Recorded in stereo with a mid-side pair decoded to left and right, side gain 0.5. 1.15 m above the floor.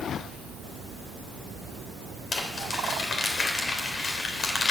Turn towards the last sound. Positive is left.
turn(degrees=40)